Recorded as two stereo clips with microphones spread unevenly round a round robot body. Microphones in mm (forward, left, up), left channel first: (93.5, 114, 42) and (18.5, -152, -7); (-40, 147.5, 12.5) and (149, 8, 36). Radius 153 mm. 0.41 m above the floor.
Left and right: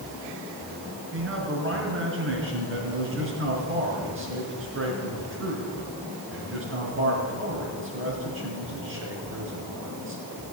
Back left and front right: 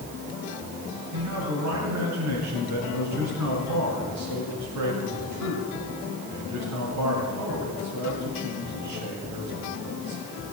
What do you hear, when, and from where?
1.1 s a man speaking: 65° right, 5 m